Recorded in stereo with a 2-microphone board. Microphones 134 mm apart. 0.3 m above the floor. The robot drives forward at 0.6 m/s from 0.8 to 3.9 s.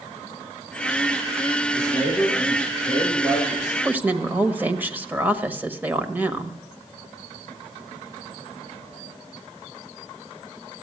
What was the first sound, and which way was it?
A man speaking, 20° left (ahead or behind).